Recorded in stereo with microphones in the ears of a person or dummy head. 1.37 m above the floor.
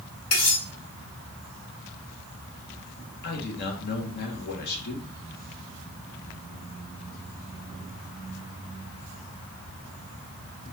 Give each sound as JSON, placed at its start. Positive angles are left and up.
{"t": 0.3, "sound": "cutlery clinking", "side_deg": 50, "distance_m": 2.5}
{"t": 3.2, "sound": "a man speaking", "side_deg": 55, "distance_m": 1.4}